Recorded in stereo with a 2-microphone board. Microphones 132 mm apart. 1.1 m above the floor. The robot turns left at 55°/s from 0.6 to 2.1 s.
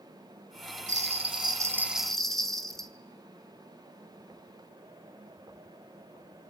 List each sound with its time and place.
0.9 s a bell: 115° right, 1.5 m; by 2.9 s 175° left, 1.5 m